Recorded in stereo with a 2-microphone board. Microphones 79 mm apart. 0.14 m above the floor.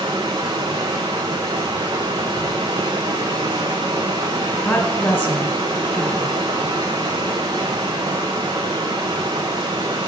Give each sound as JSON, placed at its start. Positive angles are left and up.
{"t": 0.0, "sound": "running water", "side_deg": -90, "distance_m": 1.2}
{"t": 4.6, "sound": "a woman speaking", "side_deg": 15, "distance_m": 1.4}